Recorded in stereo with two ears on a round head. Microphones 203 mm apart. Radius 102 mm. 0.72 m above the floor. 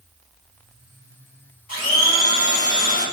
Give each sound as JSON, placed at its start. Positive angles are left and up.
{"t": 1.7, "sound": "a blender", "side_deg": 40, "distance_m": 1.9}